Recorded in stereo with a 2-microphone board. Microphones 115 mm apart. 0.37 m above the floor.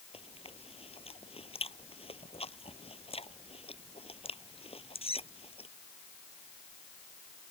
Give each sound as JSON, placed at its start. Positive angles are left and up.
{"t": 0.1, "sound": "chewing", "side_deg": 60}